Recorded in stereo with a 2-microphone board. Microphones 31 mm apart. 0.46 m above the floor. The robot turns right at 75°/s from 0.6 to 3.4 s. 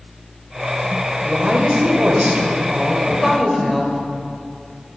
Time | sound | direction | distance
1.2 | a woman speaking | 160° right | 1.7 m